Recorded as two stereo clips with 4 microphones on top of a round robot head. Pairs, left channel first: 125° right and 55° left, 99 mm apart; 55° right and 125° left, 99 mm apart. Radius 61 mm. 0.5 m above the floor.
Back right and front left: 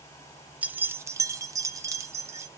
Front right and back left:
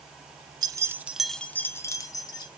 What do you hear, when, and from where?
0.6 s keys jangling: 125° left, 0.5 m; by 2.5 s 5° right, 1.0 m